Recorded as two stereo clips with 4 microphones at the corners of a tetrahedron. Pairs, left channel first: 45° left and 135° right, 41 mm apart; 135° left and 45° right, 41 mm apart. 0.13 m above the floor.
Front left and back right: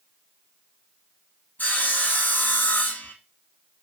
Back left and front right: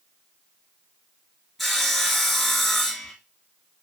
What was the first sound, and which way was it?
Sawing, 50° left.